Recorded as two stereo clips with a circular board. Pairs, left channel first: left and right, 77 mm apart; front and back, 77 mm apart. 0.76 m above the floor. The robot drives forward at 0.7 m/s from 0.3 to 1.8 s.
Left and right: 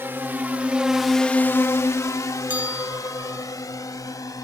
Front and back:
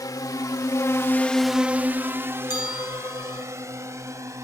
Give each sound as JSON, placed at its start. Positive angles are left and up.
{"t": 0.0, "sound": "a drone", "azimuth_deg": -30}
{"t": 2.5, "sound": "a bell", "azimuth_deg": -20}